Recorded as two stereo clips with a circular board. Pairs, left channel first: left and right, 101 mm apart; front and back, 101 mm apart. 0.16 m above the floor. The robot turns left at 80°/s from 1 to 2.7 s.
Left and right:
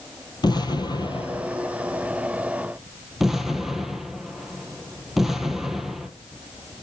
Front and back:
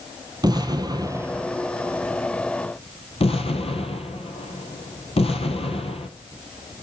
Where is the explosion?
135° left, 1.0 m; by 6.1 s straight ahead, 1.0 m.